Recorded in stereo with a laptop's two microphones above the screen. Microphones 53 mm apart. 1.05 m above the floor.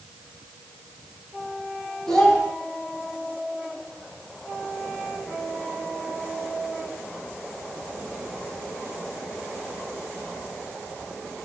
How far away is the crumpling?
I don't hear crumpling.